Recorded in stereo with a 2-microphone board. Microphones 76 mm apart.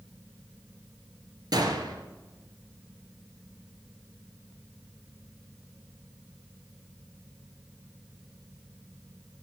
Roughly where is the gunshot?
Right.